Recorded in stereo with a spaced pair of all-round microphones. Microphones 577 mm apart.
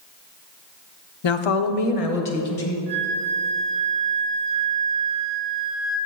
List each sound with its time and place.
1.2 s a woman speaking: 50° left (ahead or behind), 0.5 m; by 2.8 s 85° left, 1.6 m
2.9 s a flute: 50° right (ahead or behind), 2.5 m